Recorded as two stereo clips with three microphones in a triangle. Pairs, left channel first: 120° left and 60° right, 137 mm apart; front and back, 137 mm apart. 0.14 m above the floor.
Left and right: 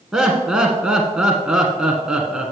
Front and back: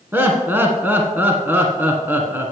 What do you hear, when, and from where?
0.1 s laughter: 135° right, 1.1 m